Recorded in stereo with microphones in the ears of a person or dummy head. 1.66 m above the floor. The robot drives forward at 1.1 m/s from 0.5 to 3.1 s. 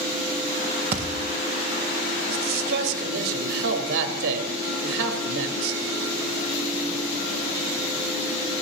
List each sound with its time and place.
0.9 s a thud: 30° right (ahead or behind), 1.2 m
2.3 s a man speaking: 60° right (ahead or behind), 3.5 m; by 5.8 s 70° right (ahead or behind), 3.5 m